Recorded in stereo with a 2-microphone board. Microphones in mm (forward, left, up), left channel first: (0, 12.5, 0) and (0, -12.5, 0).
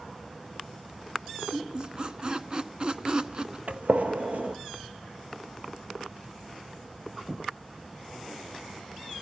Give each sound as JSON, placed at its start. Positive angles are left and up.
{"t": 1.5, "sound": "a squeak", "side_deg": -30, "distance_m": 1.0}
{"t": 3.7, "sound": "a gunshot", "side_deg": -65, "distance_m": 1.6}